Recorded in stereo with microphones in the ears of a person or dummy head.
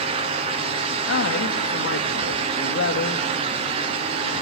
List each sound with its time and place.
1.1 s a man speaking: 75° left (ahead or behind), 2.5 m